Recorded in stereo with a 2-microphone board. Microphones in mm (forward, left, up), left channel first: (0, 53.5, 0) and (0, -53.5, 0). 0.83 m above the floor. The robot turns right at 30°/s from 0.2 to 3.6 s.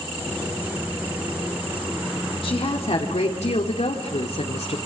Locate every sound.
2.4 s a woman speaking: 60° left, 2.5 m; by 4.8 s 95° left, 2.5 m